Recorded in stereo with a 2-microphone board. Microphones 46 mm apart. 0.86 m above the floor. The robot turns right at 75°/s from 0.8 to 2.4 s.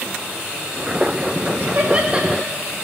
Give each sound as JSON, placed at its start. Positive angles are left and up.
{"t": 1.6, "sound": "laughter", "side_deg": -50, "distance_m": 1.7}